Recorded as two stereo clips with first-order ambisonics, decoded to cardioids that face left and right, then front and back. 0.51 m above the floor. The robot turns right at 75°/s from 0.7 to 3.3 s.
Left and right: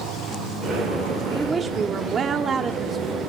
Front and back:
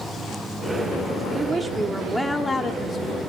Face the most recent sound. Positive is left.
turn(degrees=-5)